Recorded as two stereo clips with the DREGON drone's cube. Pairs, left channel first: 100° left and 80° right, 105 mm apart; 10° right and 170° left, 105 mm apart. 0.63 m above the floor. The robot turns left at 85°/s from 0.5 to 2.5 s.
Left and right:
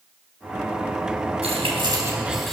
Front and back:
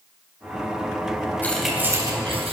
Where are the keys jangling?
85° right, 2.5 m; by 2.5 s 175° right, 2.5 m.